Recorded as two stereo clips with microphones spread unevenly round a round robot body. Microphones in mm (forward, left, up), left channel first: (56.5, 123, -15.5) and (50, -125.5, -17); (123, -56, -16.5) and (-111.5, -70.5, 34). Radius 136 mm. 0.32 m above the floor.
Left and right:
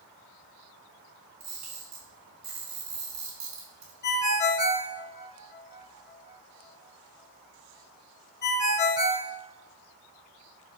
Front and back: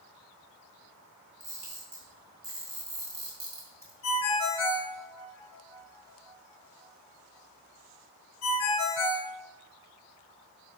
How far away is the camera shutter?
About 3.5 m.